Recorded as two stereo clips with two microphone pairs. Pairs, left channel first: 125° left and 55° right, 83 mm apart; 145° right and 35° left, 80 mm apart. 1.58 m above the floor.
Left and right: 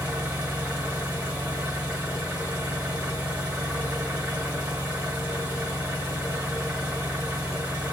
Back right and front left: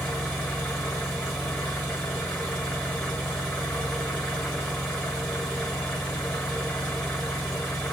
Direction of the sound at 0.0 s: 85° right.